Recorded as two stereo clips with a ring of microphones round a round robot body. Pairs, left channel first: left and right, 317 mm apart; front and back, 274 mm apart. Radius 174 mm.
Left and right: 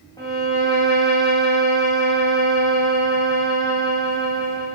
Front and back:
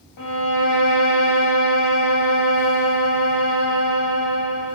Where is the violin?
10° left, 7 m.